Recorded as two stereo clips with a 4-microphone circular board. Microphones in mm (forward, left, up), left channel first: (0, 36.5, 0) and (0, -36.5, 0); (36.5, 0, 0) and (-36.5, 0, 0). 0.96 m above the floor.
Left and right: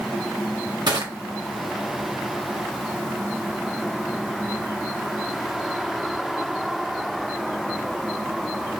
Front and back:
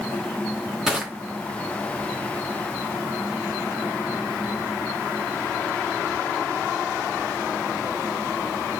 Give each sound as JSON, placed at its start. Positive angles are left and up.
{"t": 0.9, "sound": "crushing", "azimuth_deg": -100, "distance_m": 0.9}